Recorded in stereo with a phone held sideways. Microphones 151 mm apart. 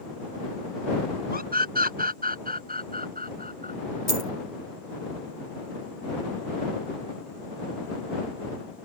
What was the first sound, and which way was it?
A scream, 85° right.